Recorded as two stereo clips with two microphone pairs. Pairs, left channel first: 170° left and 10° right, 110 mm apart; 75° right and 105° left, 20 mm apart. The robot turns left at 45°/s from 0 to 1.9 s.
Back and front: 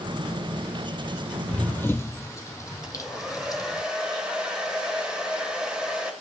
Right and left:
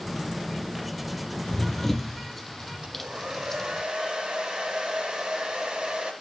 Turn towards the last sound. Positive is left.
turn(degrees=70)